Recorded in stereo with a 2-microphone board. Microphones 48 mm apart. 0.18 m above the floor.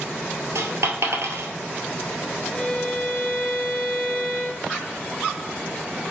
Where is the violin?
Centre (ahead or behind), 1.1 m.